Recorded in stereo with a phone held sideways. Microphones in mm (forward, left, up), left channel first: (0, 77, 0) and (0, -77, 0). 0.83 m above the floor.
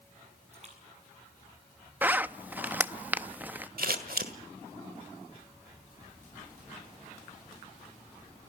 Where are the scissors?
70° right (ahead or behind), 1.6 m.